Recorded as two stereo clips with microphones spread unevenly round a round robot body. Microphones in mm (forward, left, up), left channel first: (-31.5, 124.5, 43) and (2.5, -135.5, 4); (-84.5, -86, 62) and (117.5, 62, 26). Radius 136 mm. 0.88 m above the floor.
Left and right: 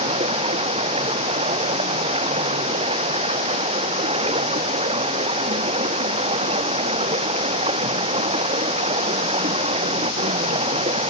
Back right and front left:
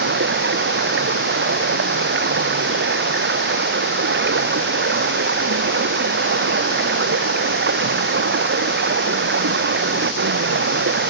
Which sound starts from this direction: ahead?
Running water, at 0.0 s.